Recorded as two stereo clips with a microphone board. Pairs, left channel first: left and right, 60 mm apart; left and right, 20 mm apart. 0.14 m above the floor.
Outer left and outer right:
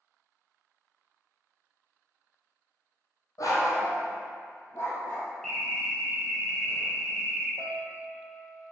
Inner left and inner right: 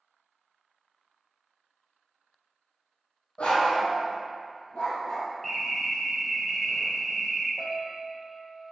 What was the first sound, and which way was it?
A dog barking, 70° left (ahead or behind).